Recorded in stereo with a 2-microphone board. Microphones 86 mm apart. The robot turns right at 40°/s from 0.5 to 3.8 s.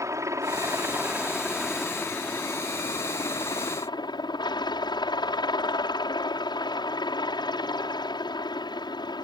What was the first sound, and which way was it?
A helicopter, 45° right.